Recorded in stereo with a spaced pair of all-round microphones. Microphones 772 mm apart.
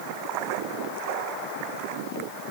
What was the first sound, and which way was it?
Only background noise.